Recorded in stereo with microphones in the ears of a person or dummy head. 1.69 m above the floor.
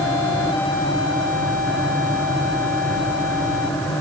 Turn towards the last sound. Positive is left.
No sound to turn to.